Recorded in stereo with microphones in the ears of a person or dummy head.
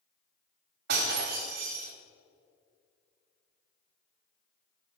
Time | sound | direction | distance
0.9 | breaking glass | 50° right (ahead or behind) | 1.3 m